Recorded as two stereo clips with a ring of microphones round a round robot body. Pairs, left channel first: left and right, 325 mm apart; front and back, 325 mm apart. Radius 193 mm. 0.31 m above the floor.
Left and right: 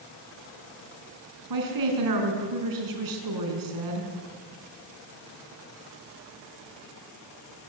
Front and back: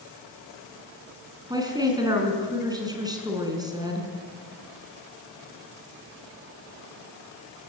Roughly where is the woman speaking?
Right.